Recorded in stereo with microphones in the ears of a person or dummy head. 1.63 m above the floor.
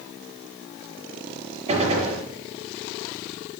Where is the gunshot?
30° right (ahead or behind), 5.5 m.